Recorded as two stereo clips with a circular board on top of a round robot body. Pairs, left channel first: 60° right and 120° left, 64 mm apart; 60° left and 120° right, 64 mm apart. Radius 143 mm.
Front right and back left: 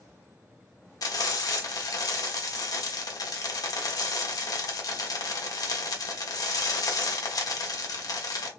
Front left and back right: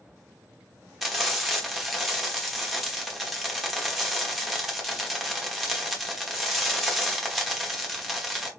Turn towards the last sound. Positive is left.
turn(degrees=-30)